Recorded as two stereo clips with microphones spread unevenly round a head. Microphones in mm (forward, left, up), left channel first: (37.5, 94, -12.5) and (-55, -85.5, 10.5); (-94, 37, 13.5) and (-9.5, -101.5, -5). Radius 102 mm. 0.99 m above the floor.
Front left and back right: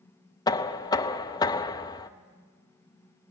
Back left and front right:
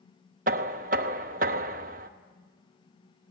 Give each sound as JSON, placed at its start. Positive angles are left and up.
{"t": 0.5, "sound": "knocking", "azimuth_deg": -10, "distance_m": 0.7}